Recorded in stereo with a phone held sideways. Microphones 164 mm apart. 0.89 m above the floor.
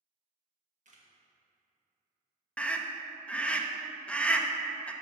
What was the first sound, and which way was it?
A camera shutter, 50° right (ahead or behind).